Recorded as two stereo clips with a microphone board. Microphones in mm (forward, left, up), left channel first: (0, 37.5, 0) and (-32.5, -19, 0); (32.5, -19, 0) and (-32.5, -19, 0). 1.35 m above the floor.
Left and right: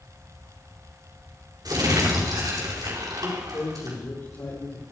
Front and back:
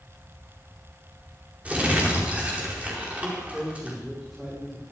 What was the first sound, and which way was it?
Crumpling, 110° right.